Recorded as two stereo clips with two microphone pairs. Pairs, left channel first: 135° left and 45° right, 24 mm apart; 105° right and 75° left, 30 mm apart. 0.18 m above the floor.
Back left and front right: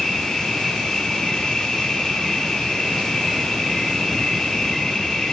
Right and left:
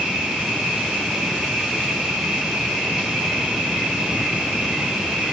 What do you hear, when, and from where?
0.0 s an insect: 120° left, 0.9 m